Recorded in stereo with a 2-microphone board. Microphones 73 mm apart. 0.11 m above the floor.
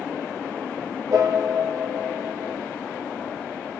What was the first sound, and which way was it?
A piano, 45° right (ahead or behind).